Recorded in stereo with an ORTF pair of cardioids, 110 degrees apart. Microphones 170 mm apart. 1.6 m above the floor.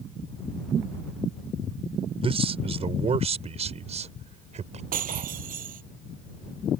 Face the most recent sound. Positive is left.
turn(degrees=-55)